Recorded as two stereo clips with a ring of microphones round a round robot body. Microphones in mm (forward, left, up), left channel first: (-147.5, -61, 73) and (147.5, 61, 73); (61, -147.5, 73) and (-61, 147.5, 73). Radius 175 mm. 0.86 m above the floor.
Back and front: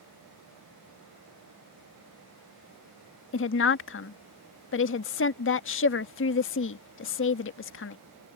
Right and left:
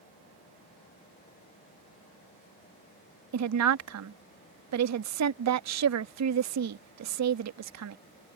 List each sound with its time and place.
3.3 s a woman speaking: 150° left